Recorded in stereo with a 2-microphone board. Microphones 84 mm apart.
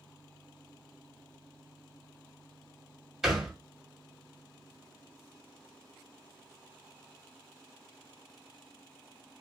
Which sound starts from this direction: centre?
A thud, at 3.2 s.